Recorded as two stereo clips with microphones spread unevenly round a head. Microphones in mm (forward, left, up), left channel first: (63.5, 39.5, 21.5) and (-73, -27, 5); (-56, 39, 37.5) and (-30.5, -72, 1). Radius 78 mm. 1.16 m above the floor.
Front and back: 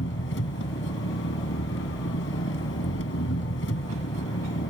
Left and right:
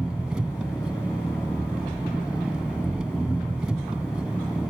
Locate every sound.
0.0 s an engine running: 10° left